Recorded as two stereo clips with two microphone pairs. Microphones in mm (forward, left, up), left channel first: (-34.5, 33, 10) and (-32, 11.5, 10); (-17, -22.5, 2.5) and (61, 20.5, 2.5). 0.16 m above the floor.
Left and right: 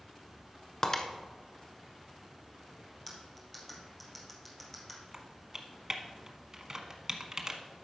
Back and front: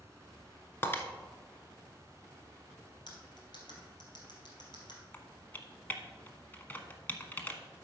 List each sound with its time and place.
0.8 s breaking glass: 145° left, 0.9 m
3.1 s cutlery clinking: 175° left, 2.5 m
5.1 s typing on a keyboard: 100° right, 1.0 m